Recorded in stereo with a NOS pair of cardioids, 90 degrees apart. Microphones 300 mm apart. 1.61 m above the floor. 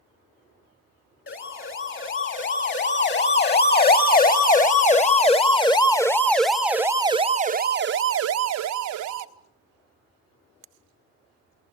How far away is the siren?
About 3.5 m.